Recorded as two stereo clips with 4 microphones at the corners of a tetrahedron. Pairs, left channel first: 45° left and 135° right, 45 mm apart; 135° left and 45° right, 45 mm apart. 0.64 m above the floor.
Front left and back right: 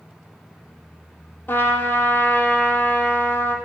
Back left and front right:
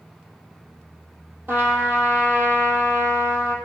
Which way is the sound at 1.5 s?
Straight ahead.